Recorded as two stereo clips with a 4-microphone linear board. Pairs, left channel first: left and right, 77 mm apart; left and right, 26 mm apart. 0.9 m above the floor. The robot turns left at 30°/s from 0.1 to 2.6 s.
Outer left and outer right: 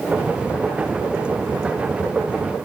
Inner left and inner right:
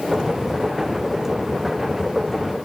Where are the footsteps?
No footsteps in this recording.